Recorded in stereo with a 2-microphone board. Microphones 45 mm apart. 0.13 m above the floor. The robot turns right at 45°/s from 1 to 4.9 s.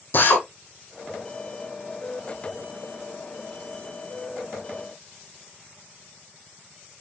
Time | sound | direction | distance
0.1 | a drill | 50° left (ahead or behind) | 4.5 m